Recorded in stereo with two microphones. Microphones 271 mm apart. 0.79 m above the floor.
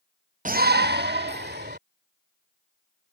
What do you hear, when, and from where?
0.5 s a shout: 30° right (ahead or behind); by 1.8 s 40° right (ahead or behind)